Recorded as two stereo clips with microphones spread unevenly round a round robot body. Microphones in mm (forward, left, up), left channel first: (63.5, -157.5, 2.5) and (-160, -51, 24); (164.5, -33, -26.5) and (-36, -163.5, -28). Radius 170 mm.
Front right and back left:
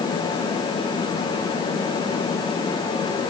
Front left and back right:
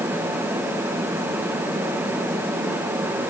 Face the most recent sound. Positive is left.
No sound to turn to.